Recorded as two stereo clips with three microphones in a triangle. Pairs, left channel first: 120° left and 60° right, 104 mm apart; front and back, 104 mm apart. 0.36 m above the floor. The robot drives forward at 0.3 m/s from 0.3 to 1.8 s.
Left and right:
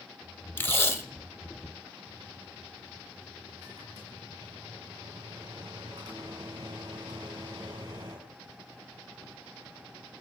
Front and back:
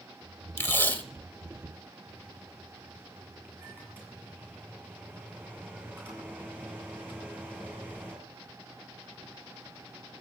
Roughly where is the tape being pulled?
Ahead left.